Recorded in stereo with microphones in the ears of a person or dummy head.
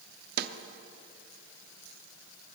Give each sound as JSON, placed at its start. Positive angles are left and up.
{"t": 0.4, "sound": "a snare drum", "side_deg": -50, "distance_m": 0.8}